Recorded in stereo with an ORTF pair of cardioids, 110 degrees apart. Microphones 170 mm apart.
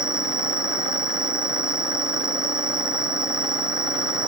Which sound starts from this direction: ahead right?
An insect, at 0.0 s.